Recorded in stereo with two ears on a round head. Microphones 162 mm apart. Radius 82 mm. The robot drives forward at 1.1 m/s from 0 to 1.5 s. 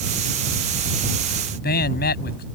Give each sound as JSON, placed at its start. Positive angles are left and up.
{"t": 1.5, "sound": "a man speaking", "side_deg": 60}